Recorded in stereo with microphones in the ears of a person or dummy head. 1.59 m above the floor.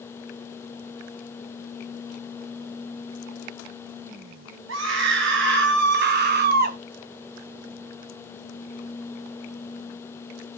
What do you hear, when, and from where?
4.7 s a scream: 65° right (ahead or behind), 2.5 m; by 6.8 s 45° right (ahead or behind), 1.5 m